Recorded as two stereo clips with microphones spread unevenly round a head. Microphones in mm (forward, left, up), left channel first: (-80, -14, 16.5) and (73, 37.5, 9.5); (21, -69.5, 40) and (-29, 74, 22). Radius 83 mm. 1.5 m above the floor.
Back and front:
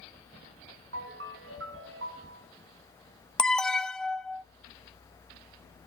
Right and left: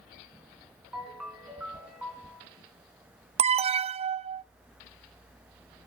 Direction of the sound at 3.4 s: 110° left.